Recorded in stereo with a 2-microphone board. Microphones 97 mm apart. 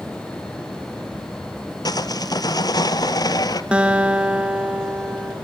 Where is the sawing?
45° left (ahead or behind), 0.8 m.